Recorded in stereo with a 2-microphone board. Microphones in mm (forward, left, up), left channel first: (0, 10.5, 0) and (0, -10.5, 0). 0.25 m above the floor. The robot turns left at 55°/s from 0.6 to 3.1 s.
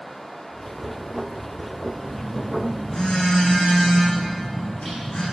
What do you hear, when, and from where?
2.0 s a phone buzzing: 170° left, 9 m; by 5.2 s 110° left, 9 m